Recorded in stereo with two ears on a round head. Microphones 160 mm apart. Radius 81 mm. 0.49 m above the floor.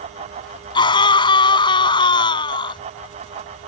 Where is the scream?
25° left (ahead or behind).